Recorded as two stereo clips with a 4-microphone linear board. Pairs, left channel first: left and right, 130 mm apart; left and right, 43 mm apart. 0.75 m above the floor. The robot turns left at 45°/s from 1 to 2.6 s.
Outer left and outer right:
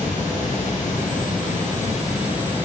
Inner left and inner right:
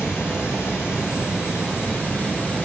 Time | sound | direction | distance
0.0 | running water | 105° left | 6.5 m